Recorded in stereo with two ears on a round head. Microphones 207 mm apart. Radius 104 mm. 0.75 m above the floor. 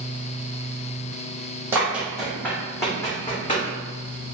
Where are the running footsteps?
10° right (ahead or behind), 1.1 m; by 3.7 s 25° left (ahead or behind), 1.9 m.